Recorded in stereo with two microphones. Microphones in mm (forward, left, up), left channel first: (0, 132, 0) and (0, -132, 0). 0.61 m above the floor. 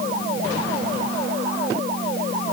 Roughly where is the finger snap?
No finger snap in this recording.